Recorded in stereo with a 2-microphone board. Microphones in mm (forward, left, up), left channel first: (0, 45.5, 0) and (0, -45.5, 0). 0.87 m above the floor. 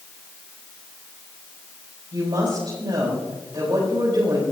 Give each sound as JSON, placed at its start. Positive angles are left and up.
{"t": 2.1, "sound": "a woman speaking", "side_deg": -60, "distance_m": 4.5}